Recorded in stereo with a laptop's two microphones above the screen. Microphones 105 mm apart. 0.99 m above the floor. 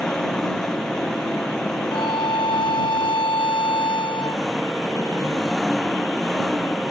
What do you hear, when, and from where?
0.0 s an engine running: 5° left (ahead or behind)
1.9 s a violin: 60° left (ahead or behind)